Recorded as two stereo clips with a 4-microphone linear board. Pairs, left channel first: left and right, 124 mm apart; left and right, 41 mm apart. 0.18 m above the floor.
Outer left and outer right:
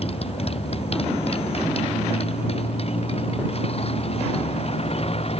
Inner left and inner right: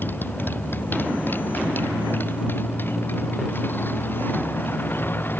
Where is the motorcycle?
50° left (ahead or behind).